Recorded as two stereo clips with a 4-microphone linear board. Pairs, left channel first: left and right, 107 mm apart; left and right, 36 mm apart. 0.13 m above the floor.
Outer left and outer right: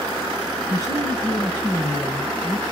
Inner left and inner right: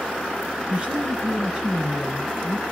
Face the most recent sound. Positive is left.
turn(degrees=-15)  # may be behind; listen again after turning